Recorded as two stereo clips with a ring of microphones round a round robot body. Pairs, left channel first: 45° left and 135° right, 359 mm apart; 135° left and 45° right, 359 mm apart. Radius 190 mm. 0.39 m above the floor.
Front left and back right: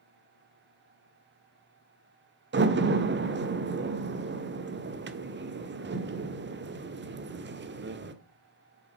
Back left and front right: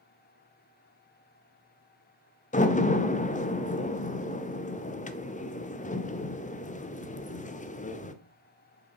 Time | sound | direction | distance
2.5 | a door slam | 170° right | 0.9 m